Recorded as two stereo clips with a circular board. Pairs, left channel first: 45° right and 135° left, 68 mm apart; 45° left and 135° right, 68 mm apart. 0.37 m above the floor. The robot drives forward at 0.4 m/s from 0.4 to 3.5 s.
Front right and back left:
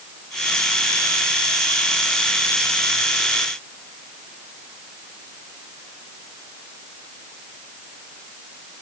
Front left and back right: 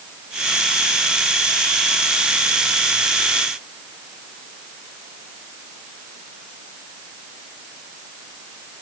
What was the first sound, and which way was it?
Only background noise.